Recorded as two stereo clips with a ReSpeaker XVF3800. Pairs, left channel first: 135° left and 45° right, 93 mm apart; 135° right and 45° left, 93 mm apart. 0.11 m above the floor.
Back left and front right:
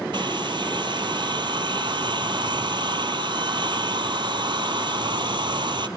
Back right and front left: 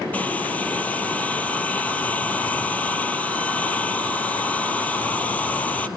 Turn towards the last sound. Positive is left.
turn(degrees=-65)